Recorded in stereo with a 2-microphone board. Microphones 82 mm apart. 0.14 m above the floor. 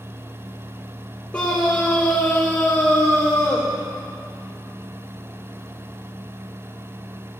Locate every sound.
1.3 s a scream: 15° left (ahead or behind), 4 m; by 3.7 s 20° left (ahead or behind), 5.5 m